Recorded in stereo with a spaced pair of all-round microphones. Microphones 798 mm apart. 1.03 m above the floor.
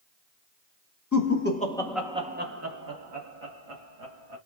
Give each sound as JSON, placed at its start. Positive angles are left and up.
{"t": 1.1, "sound": "laughter", "side_deg": 20, "distance_m": 1.1}